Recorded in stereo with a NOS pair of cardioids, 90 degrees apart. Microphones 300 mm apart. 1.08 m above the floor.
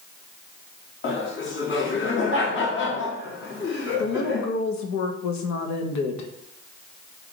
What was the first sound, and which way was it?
Laughter, 40° left.